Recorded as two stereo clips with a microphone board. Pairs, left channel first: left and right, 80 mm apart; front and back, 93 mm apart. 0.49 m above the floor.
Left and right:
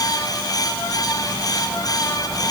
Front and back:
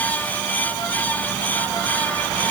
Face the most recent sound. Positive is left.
No sound to turn to.